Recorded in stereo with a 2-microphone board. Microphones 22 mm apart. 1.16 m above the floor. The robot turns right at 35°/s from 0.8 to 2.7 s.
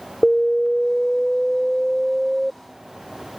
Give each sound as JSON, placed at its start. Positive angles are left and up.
{"t": 0.2, "sound": "an alarm", "azimuth_deg": 140}